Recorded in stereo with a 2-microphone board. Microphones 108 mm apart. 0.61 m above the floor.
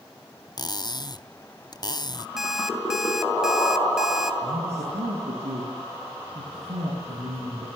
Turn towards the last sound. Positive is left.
turn(degrees=-85)